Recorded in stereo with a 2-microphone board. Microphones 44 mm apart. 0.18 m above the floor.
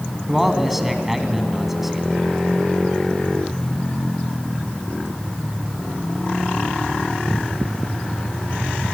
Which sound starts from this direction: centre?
A man speaking, at 0.3 s.